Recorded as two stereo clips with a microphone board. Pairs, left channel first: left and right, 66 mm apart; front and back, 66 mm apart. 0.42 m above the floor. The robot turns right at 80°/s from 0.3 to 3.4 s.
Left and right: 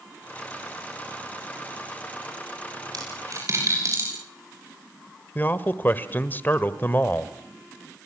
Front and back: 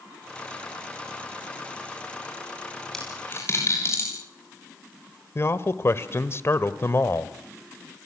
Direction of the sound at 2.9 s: 85° right.